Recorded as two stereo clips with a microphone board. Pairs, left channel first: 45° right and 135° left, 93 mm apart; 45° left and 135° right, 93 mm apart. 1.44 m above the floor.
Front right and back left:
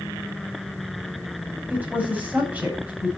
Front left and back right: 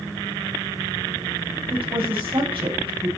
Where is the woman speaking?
155° right, 7 m.